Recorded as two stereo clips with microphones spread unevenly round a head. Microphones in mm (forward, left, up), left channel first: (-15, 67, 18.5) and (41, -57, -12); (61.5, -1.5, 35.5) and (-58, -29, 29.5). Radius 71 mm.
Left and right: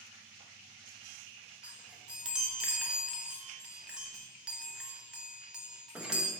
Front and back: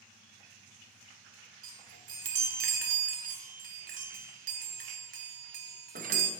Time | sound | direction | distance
1.6 | a chime | 155° right | 0.8 m